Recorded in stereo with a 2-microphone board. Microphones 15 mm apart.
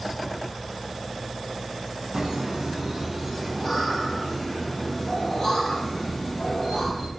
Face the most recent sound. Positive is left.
turn(degrees=40)  # may be behind; listen again after turning